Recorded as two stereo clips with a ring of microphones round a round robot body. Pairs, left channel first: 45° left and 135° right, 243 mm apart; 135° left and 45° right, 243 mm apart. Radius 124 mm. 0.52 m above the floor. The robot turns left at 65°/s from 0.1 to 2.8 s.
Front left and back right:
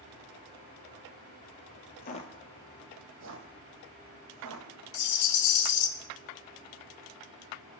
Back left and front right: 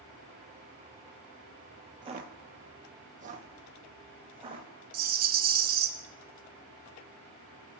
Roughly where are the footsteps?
Ahead.